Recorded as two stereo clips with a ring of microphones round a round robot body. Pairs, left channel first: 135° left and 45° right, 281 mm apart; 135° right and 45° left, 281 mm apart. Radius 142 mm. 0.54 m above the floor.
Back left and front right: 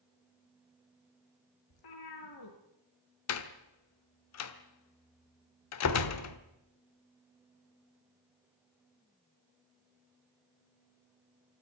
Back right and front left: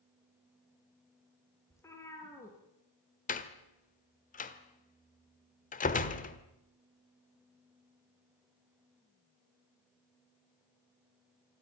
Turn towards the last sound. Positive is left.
turn(degrees=165)